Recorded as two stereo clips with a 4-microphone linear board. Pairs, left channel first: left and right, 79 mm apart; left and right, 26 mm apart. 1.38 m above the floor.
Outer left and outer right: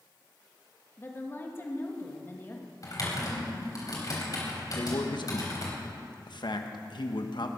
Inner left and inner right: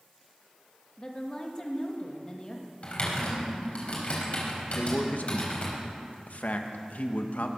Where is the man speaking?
70° left (ahead or behind), 1.2 m.